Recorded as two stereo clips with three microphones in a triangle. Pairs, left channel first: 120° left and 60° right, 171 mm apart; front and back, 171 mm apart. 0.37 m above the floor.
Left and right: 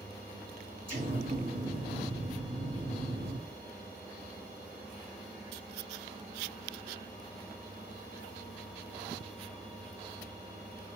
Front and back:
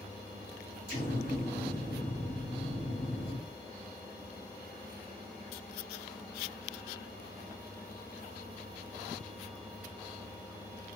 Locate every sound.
0.9 s an explosion: 25° right, 2 m